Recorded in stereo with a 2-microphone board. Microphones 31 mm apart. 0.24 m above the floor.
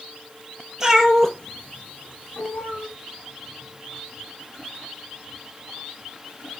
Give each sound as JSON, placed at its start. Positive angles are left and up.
{"t": 0.8, "sound": "a cat meowing", "side_deg": -15, "distance_m": 0.9}